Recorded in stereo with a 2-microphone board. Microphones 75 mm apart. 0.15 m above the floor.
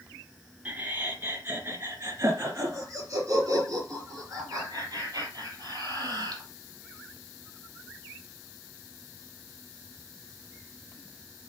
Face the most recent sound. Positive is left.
turn(degrees=-55)  # may be behind; listen again after turning